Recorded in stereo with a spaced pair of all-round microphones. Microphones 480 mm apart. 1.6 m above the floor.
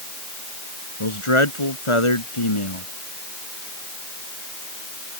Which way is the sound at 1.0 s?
85° left.